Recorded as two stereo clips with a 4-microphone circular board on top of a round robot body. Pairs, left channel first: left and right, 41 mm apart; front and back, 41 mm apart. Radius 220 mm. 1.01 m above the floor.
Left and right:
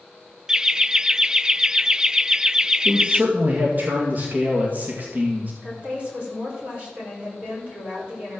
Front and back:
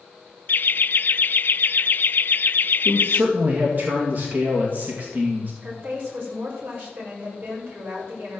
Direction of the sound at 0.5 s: 15° right.